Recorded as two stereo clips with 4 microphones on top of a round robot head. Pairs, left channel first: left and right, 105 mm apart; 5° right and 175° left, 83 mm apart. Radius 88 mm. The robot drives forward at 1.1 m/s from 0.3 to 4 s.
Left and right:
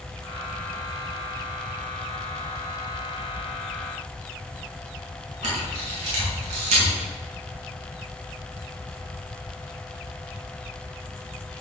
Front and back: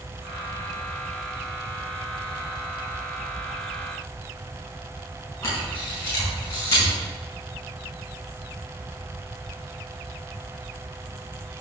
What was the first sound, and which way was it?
A camera shutter, 70° right.